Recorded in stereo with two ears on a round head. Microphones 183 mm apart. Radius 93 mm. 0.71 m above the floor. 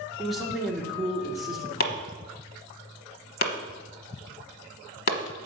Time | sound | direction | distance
0.2 | a man speaking | centre (ahead or behind) | 1.9 m
1.8 | chopping | 45° left (ahead or behind) | 1.0 m